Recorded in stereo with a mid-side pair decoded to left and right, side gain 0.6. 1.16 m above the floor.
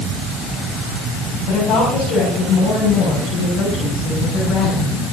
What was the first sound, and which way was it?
A woman speaking, 65° left.